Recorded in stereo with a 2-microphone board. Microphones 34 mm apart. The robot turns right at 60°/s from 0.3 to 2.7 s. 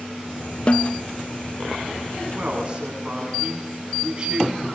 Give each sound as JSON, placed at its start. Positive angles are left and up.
{"t": 0.7, "sound": "a snare drum", "side_deg": 35, "distance_m": 0.8}
{"t": 2.3, "sound": "a man speaking", "side_deg": -50, "distance_m": 8.5}